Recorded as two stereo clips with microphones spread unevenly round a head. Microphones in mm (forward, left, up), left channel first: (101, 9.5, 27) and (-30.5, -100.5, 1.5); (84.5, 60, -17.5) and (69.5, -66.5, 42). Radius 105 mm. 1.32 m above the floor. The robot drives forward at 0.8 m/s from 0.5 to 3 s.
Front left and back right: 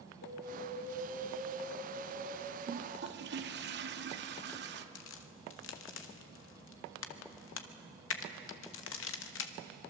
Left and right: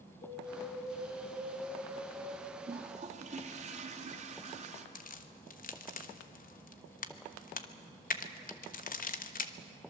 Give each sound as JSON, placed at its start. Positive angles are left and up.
{"t": 0.2, "sound": "an alarm", "azimuth_deg": 65, "distance_m": 7.0}
{"t": 2.7, "sound": "a toilet flushing", "azimuth_deg": -105, "distance_m": 1.3}
{"t": 5.0, "sound": "a crack", "azimuth_deg": 55, "distance_m": 1.2}